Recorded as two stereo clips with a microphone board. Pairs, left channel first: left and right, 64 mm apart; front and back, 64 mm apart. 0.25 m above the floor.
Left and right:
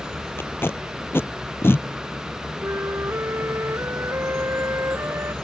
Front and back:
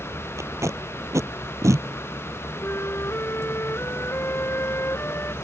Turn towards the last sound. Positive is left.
turn(degrees=-45)